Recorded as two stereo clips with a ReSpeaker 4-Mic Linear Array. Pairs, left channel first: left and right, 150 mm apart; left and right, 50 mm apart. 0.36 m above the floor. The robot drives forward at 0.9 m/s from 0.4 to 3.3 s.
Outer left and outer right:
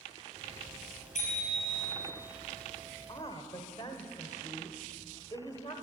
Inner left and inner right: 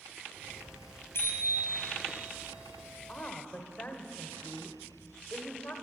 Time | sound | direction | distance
1.1 | a bicycle bell | 60° left (ahead or behind) | 6.5 m
3.1 | a woman speaking | 30° left (ahead or behind) | 1.2 m